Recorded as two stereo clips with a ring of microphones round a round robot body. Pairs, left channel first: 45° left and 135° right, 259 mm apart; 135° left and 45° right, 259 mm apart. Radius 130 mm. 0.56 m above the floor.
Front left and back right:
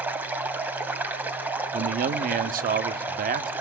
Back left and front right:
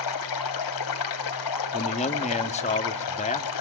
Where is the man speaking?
175° right, 0.8 m.